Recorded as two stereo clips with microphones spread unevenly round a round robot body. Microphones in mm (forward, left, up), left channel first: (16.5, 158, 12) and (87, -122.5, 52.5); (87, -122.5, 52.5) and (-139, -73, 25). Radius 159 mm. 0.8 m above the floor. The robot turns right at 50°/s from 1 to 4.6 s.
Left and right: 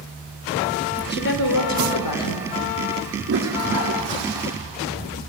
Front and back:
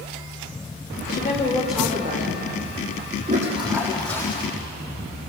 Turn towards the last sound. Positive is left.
turn(degrees=-70)